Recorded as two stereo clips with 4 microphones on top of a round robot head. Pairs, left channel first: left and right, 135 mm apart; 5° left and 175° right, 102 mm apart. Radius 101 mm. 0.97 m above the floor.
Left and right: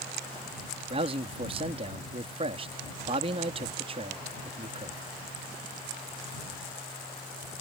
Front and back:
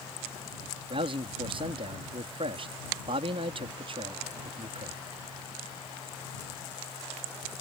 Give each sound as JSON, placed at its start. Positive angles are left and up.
{"t": 0.9, "sound": "a man speaking", "azimuth_deg": -140}